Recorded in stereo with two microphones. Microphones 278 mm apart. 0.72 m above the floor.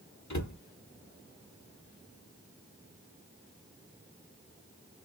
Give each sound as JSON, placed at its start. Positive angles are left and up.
{"t": 0.3, "sound": "a cupboard door", "side_deg": 80, "distance_m": 0.9}